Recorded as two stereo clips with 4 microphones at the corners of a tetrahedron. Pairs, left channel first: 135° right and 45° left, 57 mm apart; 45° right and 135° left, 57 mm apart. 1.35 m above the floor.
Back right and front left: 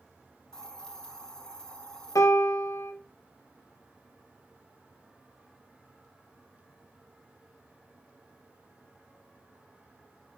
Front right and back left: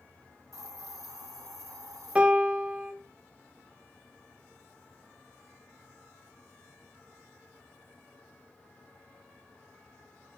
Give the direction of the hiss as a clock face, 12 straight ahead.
7 o'clock.